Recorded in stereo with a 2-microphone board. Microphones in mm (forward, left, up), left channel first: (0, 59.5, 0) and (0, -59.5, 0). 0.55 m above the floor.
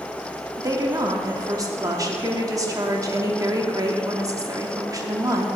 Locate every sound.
0.6 s a woman speaking: 30° right (ahead or behind), 0.9 m